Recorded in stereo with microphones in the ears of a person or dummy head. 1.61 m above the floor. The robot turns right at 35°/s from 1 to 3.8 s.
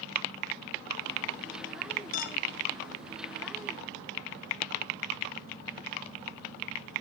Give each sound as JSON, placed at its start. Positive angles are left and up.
{"t": 2.1, "sound": "a clink", "side_deg": 45, "distance_m": 0.9}